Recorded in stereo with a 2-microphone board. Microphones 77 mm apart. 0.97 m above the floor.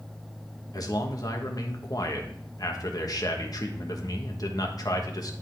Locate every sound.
0.7 s a man speaking: 55° left (ahead or behind), 1.2 m